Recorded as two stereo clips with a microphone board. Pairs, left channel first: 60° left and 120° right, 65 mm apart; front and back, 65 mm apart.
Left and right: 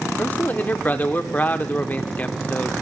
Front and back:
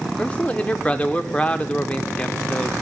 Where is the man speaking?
40° left, 0.8 m.